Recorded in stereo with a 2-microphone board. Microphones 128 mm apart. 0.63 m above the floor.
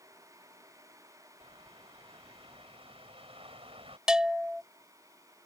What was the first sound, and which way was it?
A bird, 50° right (ahead or behind).